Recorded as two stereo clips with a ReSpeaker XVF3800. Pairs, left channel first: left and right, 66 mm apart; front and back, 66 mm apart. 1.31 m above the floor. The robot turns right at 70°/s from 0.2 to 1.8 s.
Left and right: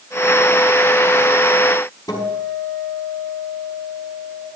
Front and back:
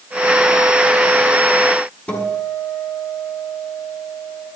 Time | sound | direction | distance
2.1 | a guitar | 65° left | 5 m